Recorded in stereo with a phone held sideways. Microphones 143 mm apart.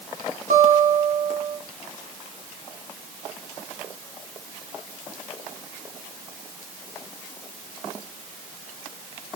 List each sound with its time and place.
0.5 s a guitar: 65° right (ahead or behind), 2.5 m